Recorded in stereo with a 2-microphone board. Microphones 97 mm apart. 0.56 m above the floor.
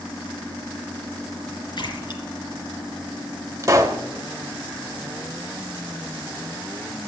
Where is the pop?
35° right (ahead or behind), 1.0 m.